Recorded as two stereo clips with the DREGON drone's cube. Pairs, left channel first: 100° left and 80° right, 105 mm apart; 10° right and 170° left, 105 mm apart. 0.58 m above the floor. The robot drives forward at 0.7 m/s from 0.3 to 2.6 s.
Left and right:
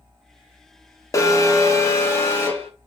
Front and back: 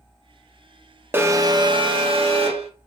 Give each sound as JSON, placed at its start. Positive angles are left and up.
{"t": 1.1, "sound": "an alarm", "azimuth_deg": 115, "distance_m": 0.7}